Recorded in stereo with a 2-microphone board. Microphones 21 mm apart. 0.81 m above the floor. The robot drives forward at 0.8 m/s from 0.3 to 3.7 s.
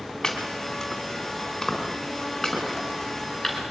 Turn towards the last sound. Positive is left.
turn(degrees=20)  # may be behind; listen again after turning